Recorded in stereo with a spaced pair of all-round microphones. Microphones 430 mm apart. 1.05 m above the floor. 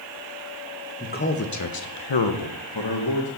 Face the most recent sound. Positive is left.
turn(degrees=55)  # may be behind; listen again after turning